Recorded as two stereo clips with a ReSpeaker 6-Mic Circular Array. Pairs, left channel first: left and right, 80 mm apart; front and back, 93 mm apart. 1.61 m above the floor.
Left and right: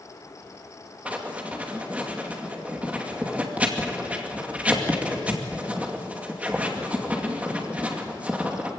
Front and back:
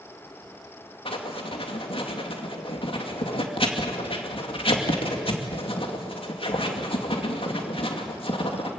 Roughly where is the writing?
Ahead.